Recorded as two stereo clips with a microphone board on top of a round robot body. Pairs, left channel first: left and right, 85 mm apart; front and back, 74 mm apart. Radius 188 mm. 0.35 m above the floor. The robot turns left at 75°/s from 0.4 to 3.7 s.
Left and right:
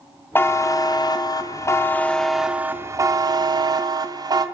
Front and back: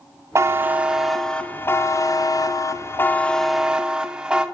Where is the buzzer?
145° left, 0.5 m; by 4.5 s 105° right, 0.5 m.